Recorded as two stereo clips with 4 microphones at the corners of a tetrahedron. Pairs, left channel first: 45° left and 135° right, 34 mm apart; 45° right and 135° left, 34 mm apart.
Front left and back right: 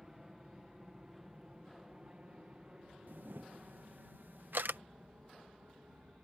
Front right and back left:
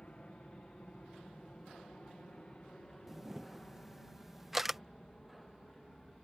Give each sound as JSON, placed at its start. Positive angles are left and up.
{"t": 0.0, "sound": "an aircraft", "azimuth_deg": -65}
{"t": 3.1, "sound": "a camera shutter", "azimuth_deg": -145}